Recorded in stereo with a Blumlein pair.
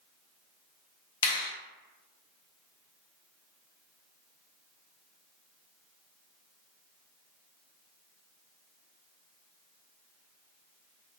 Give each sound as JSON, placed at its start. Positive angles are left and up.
{"t": 1.2, "sound": "a finger snap", "azimuth_deg": 60, "distance_m": 0.6}